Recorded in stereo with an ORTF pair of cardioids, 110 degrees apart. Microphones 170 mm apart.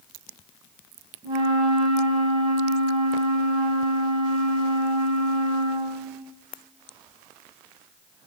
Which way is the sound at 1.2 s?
30° right.